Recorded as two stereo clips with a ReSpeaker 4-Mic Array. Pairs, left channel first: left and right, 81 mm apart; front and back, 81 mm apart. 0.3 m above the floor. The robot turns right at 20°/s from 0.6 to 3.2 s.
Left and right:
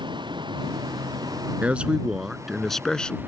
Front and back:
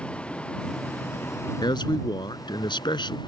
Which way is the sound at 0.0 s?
75° right.